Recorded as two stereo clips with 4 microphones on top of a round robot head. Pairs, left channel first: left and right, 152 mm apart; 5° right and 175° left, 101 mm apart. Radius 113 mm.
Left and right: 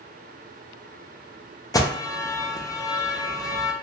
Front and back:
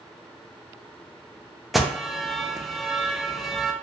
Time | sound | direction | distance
1.7 | an alarm | 85° left | 0.5 m